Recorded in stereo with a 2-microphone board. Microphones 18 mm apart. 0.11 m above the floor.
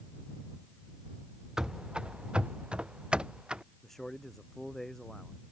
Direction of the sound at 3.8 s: 20° left (ahead or behind).